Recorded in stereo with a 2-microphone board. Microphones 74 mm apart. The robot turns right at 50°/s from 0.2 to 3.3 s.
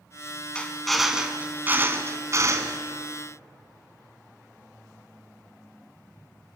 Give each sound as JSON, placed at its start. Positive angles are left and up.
{"t": 0.6, "sound": "a drill", "azimuth_deg": 165, "distance_m": 2.0}